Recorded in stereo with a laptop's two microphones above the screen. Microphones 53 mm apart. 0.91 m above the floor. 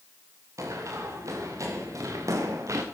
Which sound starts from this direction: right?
Running footsteps, at 0.6 s.